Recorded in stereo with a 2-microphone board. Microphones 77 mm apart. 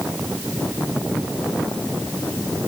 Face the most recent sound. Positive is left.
No sound to turn to.